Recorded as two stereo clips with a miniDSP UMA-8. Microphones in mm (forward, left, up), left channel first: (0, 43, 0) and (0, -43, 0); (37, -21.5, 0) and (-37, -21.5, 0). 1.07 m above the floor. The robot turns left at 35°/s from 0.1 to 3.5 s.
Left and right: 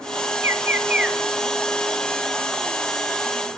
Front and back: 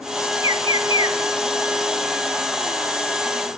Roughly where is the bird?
Behind right.